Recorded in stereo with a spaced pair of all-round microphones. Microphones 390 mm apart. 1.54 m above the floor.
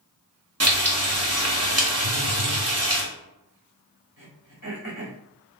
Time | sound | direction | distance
0.6 | frying | 40° right (ahead or behind) | 0.9 m
2.0 | a phone buzzing | 40° left (ahead or behind) | 0.6 m
4.2 | throat clearing | 50° left (ahead or behind) | 1.9 m